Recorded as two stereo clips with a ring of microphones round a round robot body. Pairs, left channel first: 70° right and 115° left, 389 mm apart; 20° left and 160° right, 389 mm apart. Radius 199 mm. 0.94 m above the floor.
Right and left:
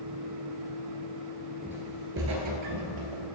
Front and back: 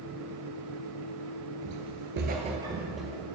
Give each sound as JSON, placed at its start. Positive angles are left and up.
{"t": 1.6, "sound": "footsteps", "azimuth_deg": -160, "distance_m": 1.1}